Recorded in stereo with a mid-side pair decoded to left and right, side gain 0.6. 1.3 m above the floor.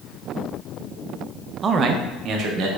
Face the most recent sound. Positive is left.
turn(degrees=-65)